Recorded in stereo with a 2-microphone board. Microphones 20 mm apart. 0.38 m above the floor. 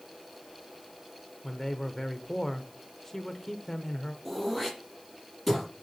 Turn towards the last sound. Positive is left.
turn(degrees=10)  # may be behind; listen again after turning